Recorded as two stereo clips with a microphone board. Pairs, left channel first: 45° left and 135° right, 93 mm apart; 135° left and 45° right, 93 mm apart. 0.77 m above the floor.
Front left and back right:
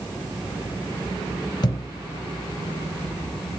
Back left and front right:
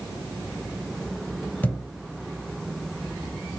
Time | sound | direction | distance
1.6 | a thud | 70° left | 0.8 m